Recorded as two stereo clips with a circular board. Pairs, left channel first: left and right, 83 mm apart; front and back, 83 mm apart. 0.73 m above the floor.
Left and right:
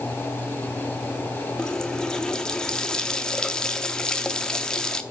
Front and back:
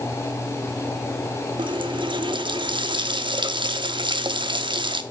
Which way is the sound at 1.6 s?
170° left.